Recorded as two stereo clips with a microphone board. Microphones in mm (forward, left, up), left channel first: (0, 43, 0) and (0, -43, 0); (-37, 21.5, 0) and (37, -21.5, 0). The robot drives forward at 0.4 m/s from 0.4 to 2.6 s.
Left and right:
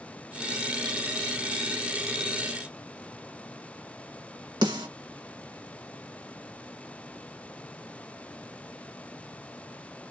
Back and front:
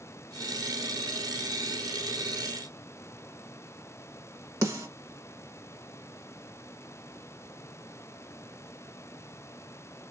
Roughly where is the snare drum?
Right.